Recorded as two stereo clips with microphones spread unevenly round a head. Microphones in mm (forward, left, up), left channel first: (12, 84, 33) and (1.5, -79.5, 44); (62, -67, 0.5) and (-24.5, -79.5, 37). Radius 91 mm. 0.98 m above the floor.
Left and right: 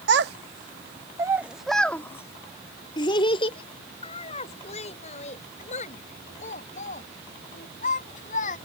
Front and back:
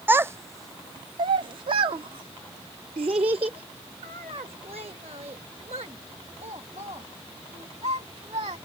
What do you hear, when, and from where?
0.1 s a child speaking: 115° right; by 8.6 s 135° left